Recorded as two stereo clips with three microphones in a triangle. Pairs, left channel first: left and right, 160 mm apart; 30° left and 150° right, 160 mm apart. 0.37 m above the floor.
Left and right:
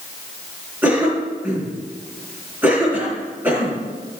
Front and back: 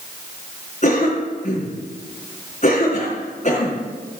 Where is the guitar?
I don't hear a guitar.